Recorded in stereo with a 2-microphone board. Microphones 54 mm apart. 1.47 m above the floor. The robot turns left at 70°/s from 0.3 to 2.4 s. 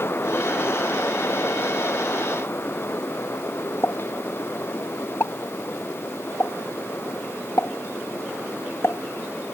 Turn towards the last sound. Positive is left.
turn(degrees=50)  # may be behind; listen again after turning